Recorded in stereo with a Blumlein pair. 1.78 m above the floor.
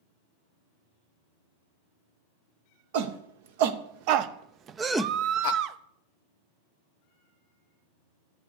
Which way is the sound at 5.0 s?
35° right.